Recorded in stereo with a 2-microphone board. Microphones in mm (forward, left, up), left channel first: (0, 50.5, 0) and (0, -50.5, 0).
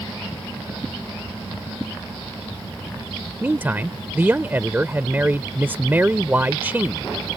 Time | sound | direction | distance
3.4 | a man speaking | 20° right (ahead or behind) | ?